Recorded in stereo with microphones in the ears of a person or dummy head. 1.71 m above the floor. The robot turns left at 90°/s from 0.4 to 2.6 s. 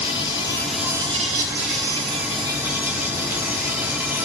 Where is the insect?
30° left, 3 m; by 4.3 s 170° right, 3 m.